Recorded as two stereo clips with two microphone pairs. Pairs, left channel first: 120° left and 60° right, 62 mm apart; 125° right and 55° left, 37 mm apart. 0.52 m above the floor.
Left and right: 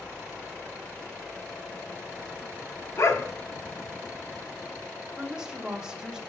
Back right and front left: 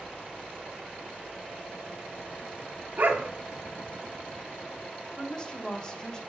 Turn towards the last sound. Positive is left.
turn(degrees=-115)